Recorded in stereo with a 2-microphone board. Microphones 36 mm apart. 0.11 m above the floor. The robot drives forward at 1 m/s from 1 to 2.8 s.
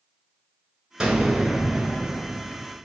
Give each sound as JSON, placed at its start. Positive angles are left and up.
{"t": 1.0, "sound": "an explosion", "side_deg": -20, "distance_m": 1.0}